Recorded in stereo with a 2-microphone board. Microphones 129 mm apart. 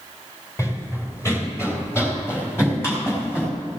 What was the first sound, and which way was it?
Running footsteps, 25° left (ahead or behind).